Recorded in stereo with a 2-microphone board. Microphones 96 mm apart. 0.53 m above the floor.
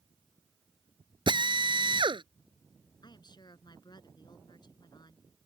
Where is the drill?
55° right (ahead or behind).